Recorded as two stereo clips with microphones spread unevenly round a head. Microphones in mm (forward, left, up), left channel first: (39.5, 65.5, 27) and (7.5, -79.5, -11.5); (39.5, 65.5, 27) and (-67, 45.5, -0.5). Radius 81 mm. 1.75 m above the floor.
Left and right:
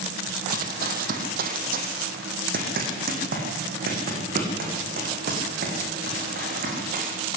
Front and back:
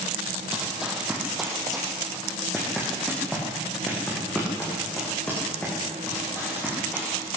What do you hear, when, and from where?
0.5 s running footsteps: 75° right, 3 m; by 7.3 s 70° right, 9 m